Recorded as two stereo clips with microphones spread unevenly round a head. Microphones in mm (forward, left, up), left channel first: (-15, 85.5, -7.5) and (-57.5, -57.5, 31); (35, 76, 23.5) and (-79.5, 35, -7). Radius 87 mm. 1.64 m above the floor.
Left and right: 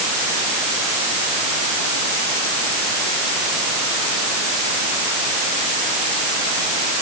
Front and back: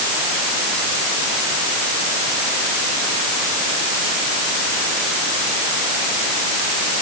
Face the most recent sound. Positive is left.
No sound to turn to.